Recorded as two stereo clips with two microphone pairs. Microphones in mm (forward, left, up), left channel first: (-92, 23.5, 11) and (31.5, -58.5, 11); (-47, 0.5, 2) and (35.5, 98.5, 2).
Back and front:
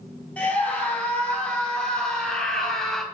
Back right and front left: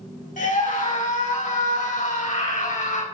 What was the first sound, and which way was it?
A scream, 135° right.